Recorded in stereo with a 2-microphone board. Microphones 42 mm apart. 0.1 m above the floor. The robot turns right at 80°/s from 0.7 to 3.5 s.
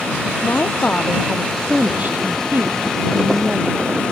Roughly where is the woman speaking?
Behind left.